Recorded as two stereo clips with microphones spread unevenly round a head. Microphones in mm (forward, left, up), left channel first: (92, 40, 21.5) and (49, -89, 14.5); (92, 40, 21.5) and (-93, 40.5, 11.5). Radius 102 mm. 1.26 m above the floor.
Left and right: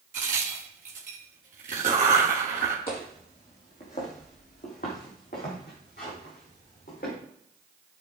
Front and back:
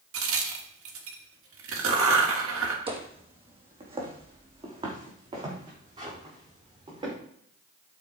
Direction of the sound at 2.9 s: 125° left.